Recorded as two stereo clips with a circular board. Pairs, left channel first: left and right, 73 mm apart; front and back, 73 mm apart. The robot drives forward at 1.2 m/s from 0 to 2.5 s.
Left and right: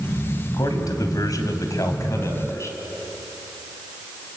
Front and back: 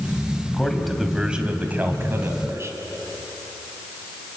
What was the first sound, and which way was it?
A man speaking, 80° left.